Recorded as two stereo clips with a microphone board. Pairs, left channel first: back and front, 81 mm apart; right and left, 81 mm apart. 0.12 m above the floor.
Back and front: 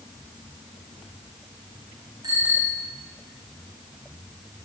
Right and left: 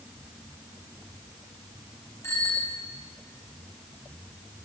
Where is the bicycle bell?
35° right, 6.5 m.